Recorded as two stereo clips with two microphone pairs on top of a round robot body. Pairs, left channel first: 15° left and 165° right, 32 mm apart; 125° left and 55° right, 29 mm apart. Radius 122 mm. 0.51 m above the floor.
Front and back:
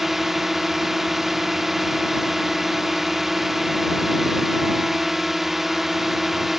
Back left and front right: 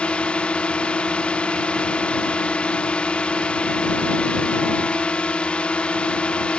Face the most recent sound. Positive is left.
turn(degrees=105)